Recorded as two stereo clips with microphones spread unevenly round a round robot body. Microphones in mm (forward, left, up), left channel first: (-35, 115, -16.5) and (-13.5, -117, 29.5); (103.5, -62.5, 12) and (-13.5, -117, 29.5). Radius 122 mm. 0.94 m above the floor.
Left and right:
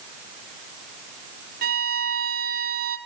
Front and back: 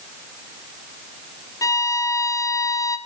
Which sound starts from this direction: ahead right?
A violin, at 1.6 s.